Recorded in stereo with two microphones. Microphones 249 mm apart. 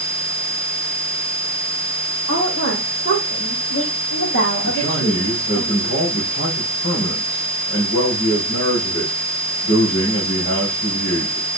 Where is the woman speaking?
65° left (ahead or behind), 4.5 m; by 5.6 s 60° left (ahead or behind), 7.5 m.